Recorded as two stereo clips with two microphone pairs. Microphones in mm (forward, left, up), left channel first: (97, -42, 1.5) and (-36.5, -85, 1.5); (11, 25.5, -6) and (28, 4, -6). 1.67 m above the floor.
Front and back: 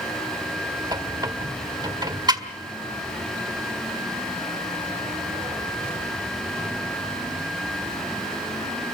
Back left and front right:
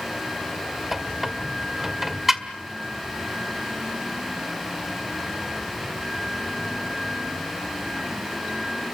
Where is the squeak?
120° right, 1.7 m.